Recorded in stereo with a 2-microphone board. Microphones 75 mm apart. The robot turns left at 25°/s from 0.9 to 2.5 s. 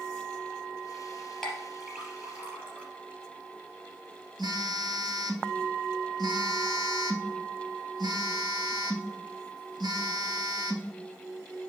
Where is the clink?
10° left (ahead or behind), 3.5 m; by 2.9 s 20° right (ahead or behind), 3.5 m.